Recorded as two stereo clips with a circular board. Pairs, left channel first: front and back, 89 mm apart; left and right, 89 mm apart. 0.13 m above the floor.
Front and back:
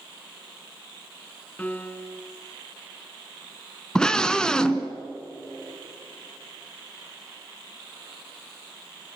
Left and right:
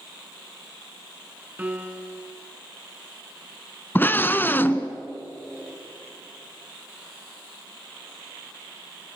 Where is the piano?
45° right, 1.3 m.